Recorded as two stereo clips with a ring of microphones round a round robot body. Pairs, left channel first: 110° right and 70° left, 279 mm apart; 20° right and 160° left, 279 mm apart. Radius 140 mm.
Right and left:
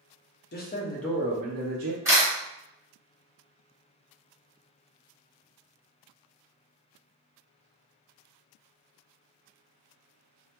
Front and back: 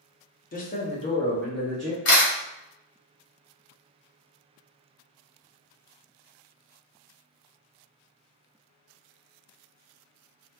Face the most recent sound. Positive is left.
turn(degrees=-10)